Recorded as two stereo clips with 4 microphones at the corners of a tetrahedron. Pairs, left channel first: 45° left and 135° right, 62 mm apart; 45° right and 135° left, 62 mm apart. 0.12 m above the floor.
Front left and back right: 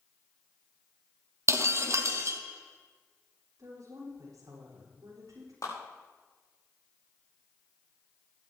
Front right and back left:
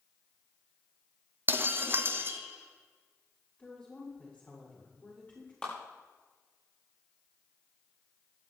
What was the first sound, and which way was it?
Breaking glass, 175° right.